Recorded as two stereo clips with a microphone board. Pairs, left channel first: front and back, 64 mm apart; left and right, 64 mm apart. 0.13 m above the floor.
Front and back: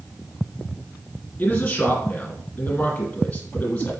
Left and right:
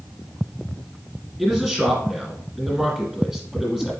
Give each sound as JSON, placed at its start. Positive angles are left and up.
{"t": 1.4, "sound": "a man speaking", "azimuth_deg": -20, "distance_m": 1.8}